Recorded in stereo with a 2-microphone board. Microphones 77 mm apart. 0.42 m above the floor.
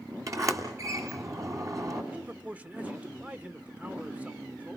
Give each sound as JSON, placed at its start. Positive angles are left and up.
{"t": 0.3, "sound": "a sliding door", "side_deg": -45, "distance_m": 2.5}
{"t": 2.1, "sound": "a man speaking", "side_deg": -20, "distance_m": 0.9}